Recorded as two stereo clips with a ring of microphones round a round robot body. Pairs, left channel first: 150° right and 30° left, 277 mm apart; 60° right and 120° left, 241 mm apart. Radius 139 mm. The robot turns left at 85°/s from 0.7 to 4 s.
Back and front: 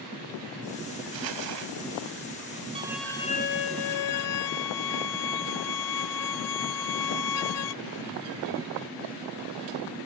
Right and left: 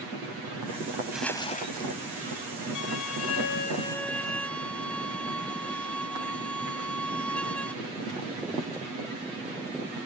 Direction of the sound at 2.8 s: 40° right.